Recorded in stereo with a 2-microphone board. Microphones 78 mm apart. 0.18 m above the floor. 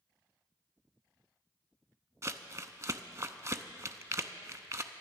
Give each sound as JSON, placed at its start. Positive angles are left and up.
{"t": 2.2, "sound": "crumpling", "side_deg": -40, "distance_m": 0.6}